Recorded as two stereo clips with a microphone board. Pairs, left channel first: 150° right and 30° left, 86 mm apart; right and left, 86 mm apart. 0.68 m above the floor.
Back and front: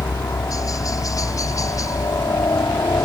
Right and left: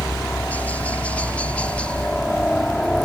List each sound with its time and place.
0.0 s a helicopter: 150° right; by 3.1 s 165° right